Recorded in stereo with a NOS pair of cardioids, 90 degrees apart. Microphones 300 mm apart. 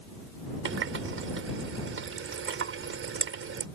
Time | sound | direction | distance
0.7 | a running tap | 45° right | ?